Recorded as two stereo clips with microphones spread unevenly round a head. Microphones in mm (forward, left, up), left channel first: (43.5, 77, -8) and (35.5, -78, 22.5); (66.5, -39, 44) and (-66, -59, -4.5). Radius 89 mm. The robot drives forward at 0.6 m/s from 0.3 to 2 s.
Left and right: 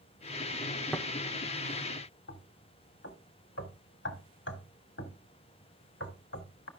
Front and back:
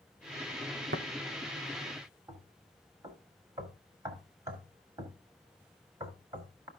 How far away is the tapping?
About 1.1 m.